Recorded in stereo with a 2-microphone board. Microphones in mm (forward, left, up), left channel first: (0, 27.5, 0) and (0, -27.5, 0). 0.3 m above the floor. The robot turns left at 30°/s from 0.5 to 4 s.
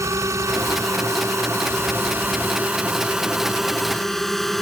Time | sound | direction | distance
0.0 | a drone | 65° right (ahead or behind) | ?